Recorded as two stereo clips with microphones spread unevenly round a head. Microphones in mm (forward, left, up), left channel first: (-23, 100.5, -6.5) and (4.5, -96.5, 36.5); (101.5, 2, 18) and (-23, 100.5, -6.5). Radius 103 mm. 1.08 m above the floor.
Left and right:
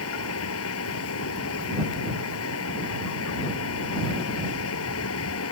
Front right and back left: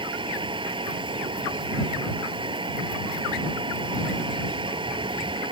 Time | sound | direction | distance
0.0 | a fan | 80° left | ?